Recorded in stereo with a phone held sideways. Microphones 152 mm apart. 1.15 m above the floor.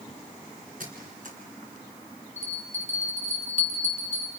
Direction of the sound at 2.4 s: 50° left (ahead or behind).